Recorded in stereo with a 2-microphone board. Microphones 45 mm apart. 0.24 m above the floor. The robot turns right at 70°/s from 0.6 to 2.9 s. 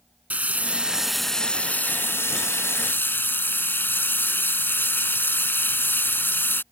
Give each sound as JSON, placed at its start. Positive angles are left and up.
{"t": 0.3, "sound": "frying", "azimuth_deg": -40}